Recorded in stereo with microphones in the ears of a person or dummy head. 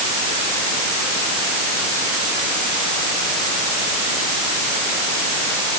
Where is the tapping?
No tapping in this recording.